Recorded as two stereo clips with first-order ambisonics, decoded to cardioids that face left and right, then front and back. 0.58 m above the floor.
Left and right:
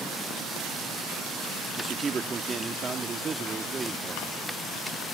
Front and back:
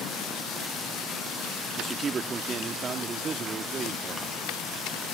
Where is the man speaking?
140° right.